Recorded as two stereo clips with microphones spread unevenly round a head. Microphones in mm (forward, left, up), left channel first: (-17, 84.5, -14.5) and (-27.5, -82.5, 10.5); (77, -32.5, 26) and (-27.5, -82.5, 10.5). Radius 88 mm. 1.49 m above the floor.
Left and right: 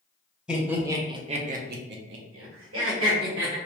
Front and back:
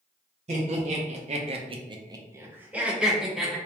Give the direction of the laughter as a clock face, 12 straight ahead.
6 o'clock.